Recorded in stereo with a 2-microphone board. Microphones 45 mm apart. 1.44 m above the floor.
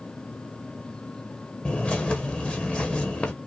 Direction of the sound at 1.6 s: 25° left (ahead or behind).